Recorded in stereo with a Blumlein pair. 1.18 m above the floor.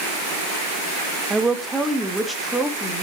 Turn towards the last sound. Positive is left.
turn(degrees=0)